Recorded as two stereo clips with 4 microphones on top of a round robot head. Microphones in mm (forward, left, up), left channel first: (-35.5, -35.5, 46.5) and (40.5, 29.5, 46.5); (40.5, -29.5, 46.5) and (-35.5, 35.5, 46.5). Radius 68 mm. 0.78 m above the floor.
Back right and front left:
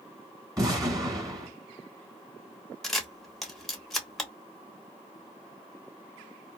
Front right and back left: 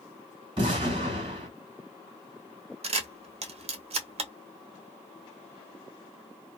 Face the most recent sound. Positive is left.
turn(degrees=135)